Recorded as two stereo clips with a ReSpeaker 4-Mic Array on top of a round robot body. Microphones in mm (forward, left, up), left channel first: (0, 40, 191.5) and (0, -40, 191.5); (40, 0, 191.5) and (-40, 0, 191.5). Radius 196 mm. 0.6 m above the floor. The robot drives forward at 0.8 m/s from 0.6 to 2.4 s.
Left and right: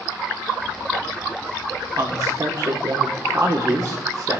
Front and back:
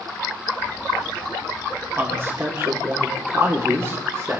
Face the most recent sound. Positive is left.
turn(degrees=-130)